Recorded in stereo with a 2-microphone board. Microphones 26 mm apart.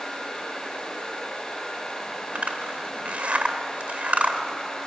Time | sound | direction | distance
2.4 | a zipper | 70° right (ahead or behind) | 1.8 m